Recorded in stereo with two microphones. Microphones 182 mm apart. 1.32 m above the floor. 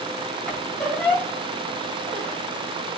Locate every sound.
0.5 s a squeak: 5° left (ahead or behind), 2 m